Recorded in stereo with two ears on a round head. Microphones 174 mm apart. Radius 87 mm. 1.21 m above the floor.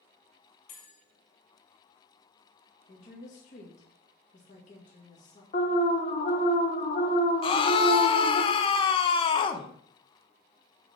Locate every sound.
0.7 s a bell: 75° left (ahead or behind), 2.5 m
2.9 s a woman speaking: 40° left (ahead or behind), 1.9 m
5.5 s an alarm: 40° left (ahead or behind), 1.0 m
7.4 s a scream: 25° left (ahead or behind), 0.7 m